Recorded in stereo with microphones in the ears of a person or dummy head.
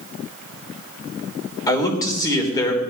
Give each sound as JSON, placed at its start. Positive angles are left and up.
{"t": 1.7, "sound": "a man speaking", "side_deg": 20, "distance_m": 3.5}